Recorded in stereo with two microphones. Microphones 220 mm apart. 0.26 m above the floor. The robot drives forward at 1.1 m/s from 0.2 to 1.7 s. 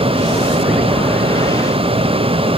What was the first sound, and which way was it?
Only background noise.